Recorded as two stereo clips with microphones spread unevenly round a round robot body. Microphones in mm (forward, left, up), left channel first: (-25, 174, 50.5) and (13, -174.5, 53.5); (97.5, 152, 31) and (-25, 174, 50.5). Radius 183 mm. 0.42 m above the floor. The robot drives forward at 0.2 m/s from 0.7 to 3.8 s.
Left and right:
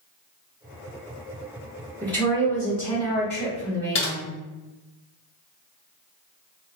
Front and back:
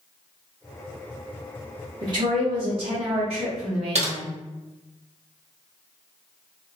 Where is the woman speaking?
175° left, 0.8 m.